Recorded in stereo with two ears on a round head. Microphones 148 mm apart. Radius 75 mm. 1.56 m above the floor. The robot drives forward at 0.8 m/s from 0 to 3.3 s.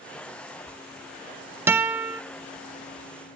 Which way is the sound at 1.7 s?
15° right (ahead or behind).